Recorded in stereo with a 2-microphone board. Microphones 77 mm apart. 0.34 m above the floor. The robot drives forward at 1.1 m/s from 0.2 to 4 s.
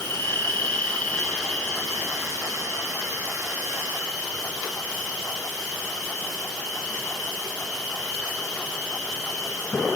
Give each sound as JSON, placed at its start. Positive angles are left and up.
{"t": 0.0, "sound": "an insect", "side_deg": 35, "distance_m": 1.5}